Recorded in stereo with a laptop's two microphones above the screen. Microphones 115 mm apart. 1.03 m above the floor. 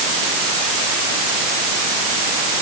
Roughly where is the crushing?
No crushing in this recording.